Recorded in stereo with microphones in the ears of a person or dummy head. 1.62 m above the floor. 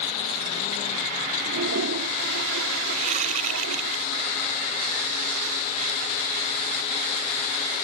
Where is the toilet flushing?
75° right (ahead or behind).